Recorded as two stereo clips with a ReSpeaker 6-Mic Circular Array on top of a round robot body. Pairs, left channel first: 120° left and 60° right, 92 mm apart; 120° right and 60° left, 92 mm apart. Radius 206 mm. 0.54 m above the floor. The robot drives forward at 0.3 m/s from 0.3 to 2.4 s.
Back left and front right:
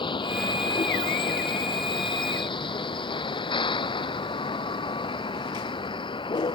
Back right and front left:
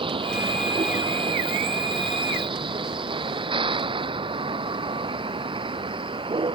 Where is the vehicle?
90° left.